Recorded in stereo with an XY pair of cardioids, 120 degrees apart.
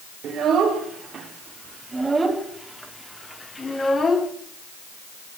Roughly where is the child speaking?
Ahead right.